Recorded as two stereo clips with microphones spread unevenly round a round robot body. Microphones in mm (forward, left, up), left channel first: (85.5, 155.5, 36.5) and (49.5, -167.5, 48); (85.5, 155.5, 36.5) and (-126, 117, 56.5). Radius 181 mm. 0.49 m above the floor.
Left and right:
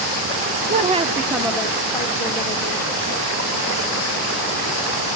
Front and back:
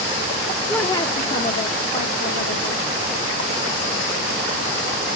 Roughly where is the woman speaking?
Ahead right.